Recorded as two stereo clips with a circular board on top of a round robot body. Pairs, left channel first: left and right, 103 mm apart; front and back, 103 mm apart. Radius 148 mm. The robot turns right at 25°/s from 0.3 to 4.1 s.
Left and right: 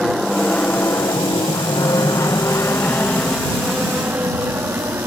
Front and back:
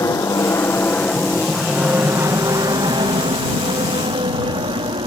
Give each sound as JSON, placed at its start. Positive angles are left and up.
{"t": 0.0, "sound": "an aircraft", "azimuth_deg": -5}